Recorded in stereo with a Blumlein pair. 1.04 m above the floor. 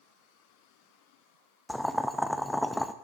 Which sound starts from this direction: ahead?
Boiling, at 1.7 s.